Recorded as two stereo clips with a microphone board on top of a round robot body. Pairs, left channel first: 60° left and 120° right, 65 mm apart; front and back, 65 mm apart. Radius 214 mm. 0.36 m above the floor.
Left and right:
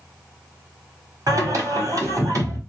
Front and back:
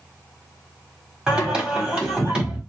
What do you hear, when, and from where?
1.3 s singing: 105° right, 1.9 m